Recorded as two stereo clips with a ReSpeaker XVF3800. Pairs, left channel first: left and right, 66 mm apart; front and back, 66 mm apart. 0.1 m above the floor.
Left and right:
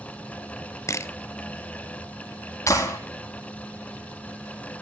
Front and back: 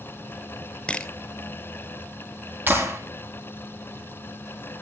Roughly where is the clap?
Behind left.